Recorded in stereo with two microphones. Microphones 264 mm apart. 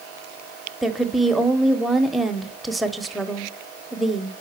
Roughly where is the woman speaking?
Centre.